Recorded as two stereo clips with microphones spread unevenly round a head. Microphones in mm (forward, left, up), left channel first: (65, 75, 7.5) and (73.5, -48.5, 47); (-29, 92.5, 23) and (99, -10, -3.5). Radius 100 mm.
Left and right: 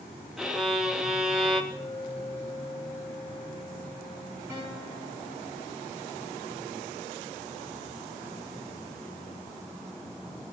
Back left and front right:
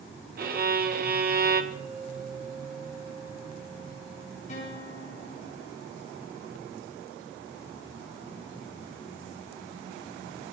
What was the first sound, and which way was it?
A violin, 5° right.